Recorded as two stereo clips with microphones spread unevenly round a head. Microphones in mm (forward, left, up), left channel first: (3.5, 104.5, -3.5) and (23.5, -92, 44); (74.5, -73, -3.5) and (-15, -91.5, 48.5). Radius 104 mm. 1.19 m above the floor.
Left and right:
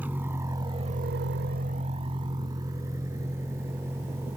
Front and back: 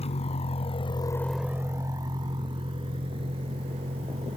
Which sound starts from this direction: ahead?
A vehicle, at 0.0 s.